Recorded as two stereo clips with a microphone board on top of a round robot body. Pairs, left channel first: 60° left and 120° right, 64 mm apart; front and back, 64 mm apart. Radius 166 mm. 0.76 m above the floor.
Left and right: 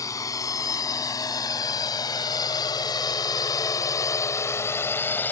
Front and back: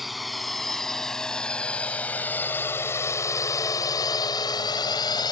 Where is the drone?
90° left; by 5.3 s 5° right.